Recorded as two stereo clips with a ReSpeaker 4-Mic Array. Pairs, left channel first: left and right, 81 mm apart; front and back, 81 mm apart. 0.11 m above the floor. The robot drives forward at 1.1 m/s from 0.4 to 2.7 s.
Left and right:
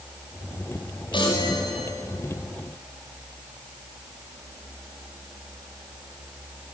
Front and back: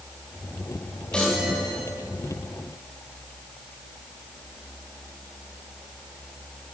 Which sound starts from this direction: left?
A chime, at 1.1 s.